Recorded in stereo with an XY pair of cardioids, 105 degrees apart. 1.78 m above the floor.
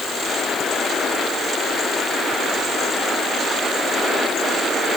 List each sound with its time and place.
Only background noise.